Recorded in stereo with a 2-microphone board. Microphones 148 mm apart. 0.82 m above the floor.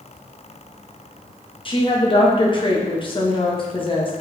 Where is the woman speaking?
35° left (ahead or behind), 0.8 m.